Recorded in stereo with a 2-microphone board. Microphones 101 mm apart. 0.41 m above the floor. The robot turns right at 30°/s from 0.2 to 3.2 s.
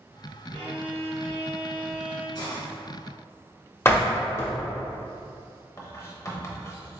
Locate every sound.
0.5 s a violin: 70° right, 1.8 m; by 2.2 s 15° right, 1.8 m
2.4 s a hiss: 45° left (ahead or behind), 1.6 m; by 2.7 s 55° left (ahead or behind), 1.6 m
3.9 s a door slam: 25° left (ahead or behind), 0.8 m
5.8 s writing: 30° left (ahead or behind), 0.7 m